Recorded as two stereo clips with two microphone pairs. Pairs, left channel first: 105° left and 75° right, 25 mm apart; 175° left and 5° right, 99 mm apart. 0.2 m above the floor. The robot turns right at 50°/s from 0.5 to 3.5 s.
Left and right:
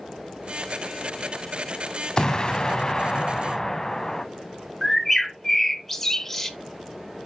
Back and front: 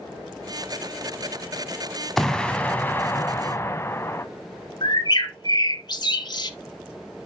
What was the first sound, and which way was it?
An explosion, 95° left.